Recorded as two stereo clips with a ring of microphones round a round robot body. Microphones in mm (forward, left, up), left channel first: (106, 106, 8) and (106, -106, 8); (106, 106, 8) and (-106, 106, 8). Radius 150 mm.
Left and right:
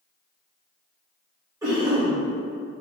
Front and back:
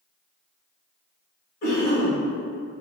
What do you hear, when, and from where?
1.6 s a cough: 20° right, 1.1 m